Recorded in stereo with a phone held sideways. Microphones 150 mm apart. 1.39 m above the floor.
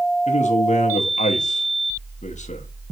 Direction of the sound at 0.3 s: 55° left (ahead or behind).